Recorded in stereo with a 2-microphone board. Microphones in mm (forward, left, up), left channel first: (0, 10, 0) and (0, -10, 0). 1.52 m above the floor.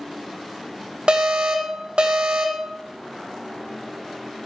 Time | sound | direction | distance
1.1 | an alarm | 60° right (ahead or behind) | 2 m